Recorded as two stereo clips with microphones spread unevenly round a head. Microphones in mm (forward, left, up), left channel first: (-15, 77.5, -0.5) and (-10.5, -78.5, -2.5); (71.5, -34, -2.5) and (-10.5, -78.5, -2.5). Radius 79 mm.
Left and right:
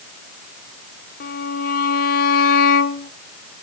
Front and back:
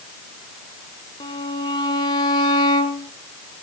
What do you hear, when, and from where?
1.2 s a violin: 75° left, 1.2 m